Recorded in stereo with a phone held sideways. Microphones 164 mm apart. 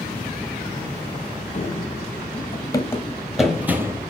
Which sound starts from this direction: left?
Running footsteps, at 1.5 s.